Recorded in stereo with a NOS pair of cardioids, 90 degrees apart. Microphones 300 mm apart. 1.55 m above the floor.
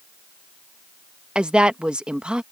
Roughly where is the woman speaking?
Ahead.